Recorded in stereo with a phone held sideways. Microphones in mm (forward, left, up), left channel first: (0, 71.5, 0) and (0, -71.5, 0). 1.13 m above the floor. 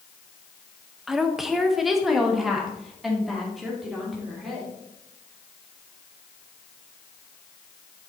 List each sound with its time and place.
1.1 s a woman speaking: centre (ahead or behind), 0.7 m